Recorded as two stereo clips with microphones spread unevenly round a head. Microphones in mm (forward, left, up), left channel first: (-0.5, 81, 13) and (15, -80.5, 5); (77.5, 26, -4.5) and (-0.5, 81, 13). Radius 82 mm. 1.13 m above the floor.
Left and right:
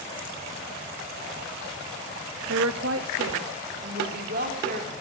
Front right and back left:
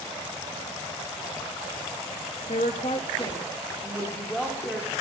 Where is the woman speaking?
80° right, 1.1 m; by 4.9 s 130° right, 2.5 m.